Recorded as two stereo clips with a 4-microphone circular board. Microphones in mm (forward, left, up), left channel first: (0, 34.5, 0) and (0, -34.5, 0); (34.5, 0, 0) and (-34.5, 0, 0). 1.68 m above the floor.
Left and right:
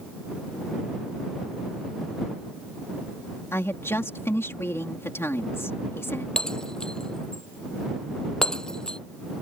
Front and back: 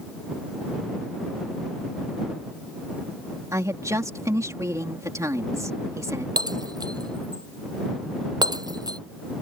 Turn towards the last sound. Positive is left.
turn(degrees=170)